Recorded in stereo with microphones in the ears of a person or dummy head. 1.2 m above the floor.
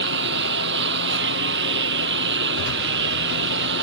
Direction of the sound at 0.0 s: 70° right (ahead or behind).